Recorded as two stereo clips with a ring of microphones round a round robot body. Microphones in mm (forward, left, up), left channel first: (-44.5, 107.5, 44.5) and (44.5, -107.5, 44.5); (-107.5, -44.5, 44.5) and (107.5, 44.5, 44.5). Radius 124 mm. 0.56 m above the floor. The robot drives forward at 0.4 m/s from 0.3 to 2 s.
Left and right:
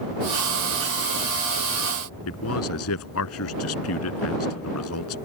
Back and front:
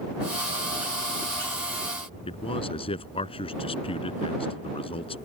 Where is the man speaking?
135° left.